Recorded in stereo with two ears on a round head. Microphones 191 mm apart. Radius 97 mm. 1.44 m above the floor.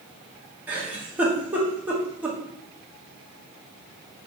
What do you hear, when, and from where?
0.7 s a giggle: 10° right (ahead or behind), 1.0 m